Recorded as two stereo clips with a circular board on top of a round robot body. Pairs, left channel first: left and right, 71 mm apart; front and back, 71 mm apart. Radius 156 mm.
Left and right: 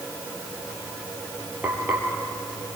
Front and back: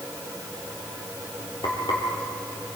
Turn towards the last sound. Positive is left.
turn(degrees=-20)